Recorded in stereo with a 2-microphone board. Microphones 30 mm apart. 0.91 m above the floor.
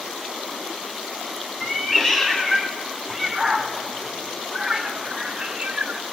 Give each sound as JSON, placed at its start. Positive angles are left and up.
{"t": 1.6, "sound": "a cat meowing", "side_deg": 15, "distance_m": 4.5}